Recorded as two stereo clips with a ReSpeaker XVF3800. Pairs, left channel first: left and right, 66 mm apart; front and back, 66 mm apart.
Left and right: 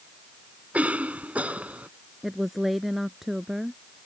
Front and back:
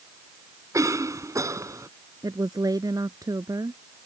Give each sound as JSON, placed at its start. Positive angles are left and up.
{"t": 0.7, "sound": "a cough", "azimuth_deg": -155}
{"t": 2.2, "sound": "a woman speaking", "azimuth_deg": -175}